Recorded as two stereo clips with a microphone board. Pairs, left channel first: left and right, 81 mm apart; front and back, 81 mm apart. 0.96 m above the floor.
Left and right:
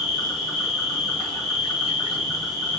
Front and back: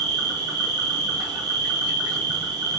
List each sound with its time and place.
0.0 s an insect: straight behind, 2.5 m